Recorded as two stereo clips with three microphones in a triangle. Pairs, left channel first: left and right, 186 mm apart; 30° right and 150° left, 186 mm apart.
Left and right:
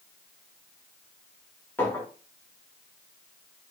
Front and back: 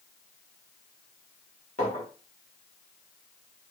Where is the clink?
10° left, 1.3 m.